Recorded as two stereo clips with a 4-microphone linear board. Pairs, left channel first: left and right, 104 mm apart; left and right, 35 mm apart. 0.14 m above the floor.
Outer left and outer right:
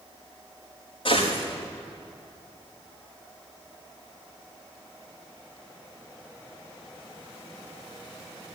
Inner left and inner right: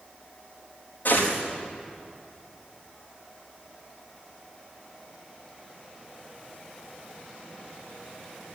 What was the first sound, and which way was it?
A gunshot, 55° left (ahead or behind).